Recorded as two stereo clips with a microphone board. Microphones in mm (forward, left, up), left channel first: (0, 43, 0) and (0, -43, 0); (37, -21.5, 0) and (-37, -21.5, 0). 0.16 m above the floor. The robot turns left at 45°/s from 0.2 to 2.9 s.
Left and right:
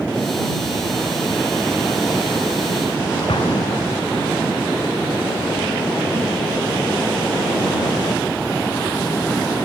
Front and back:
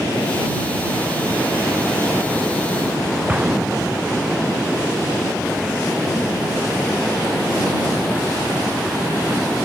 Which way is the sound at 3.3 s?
105° left.